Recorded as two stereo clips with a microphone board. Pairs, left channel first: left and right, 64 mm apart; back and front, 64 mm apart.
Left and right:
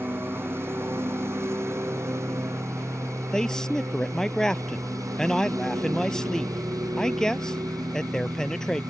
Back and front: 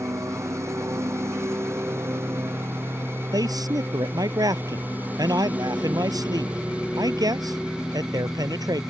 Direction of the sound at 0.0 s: 40° right.